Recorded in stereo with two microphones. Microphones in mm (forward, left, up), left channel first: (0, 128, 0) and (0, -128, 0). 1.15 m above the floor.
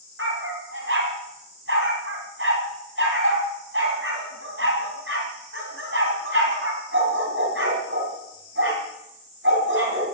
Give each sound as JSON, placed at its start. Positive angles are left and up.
{"t": 0.2, "sound": "a dog barking", "side_deg": -60, "distance_m": 3.5}